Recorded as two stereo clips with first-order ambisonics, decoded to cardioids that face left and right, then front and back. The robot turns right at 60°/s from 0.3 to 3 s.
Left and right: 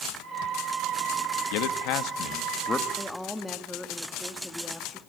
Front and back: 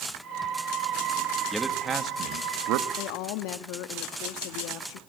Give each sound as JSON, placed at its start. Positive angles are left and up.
{"t": 1.5, "sound": "a man speaking", "azimuth_deg": 90, "distance_m": 1.9}
{"t": 3.0, "sound": "a woman speaking", "azimuth_deg": 0, "distance_m": 1.7}